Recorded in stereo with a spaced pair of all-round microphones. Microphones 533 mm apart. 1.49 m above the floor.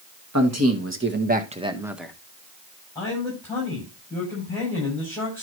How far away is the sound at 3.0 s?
About 8 m.